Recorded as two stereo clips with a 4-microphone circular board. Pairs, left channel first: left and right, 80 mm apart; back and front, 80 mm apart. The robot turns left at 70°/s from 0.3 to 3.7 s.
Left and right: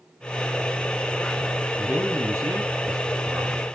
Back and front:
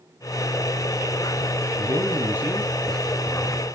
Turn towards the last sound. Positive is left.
turn(degrees=-155)